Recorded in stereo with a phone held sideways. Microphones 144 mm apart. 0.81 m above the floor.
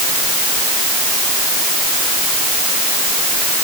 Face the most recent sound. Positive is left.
No sound to turn to.